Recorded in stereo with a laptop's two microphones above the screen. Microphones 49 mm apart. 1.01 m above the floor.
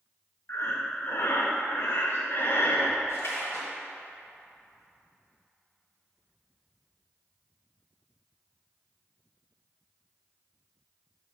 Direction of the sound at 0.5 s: 55° left (ahead or behind).